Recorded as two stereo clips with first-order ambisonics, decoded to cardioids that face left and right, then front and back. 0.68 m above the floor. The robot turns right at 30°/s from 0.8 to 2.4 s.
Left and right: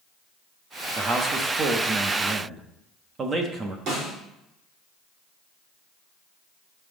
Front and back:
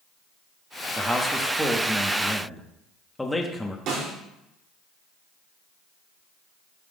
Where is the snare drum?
140° right, 4.5 m.